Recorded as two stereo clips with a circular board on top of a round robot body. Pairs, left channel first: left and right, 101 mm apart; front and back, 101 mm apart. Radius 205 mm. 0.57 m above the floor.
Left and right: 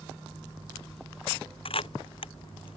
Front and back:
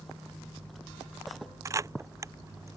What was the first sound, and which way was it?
A camera shutter, 120° left.